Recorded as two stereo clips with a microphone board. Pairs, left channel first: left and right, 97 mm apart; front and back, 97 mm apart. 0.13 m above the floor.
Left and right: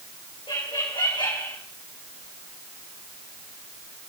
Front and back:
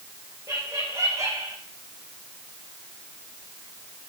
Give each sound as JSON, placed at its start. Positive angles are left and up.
{"t": 0.5, "sound": "laughter", "azimuth_deg": 120, "distance_m": 7.0}